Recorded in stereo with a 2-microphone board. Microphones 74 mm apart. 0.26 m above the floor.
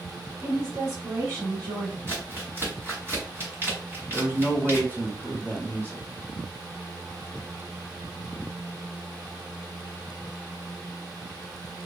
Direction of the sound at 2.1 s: 30° right (ahead or behind).